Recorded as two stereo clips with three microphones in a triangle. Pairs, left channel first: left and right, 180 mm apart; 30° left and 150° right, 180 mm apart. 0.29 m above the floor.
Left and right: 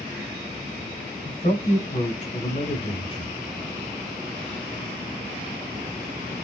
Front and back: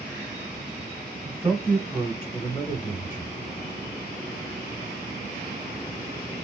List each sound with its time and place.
1.2 s a man speaking: 115° left, 2 m; by 3.4 s 55° left, 1.6 m